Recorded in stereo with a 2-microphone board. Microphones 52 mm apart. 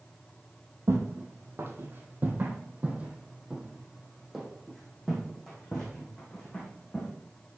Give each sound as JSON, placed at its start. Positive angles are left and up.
{"t": 0.9, "sound": "footsteps", "side_deg": -60, "distance_m": 1.7}